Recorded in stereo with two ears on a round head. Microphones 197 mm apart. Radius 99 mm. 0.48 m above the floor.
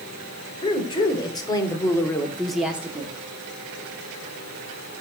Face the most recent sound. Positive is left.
turn(degrees=-15)  # may be behind; listen again after turning